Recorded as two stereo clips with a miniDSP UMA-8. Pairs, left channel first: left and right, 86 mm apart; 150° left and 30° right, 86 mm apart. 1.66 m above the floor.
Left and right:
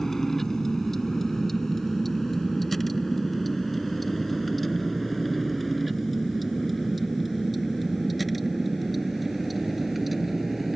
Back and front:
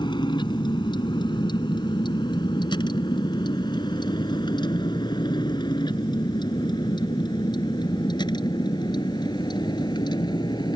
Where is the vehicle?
175° left; by 10.8 s 175° right.